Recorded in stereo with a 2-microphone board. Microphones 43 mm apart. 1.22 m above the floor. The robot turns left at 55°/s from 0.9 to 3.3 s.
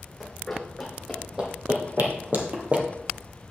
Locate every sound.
0.2 s running footsteps: 5° left (ahead or behind), 3 m; by 2.9 s 25° right (ahead or behind), 1.6 m